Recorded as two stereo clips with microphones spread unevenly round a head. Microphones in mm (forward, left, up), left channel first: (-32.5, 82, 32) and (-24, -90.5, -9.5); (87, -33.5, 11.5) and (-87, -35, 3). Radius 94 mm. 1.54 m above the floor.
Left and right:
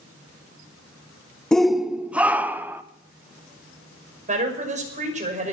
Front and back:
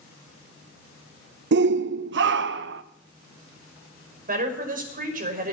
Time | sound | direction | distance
1.5 | a shout | 175° right | 0.6 m
4.3 | a woman speaking | 140° right | 6 m